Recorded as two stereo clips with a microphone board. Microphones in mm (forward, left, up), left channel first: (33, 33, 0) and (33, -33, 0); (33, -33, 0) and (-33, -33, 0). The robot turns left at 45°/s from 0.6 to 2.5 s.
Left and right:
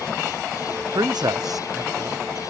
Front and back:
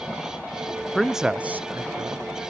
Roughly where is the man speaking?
Right.